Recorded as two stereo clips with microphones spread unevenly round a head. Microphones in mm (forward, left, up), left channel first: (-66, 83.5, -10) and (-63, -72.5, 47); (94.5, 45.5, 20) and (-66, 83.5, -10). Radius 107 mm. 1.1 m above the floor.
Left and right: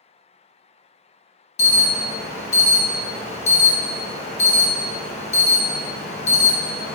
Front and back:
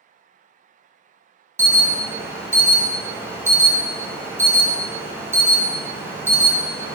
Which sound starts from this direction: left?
An alarm, at 1.6 s.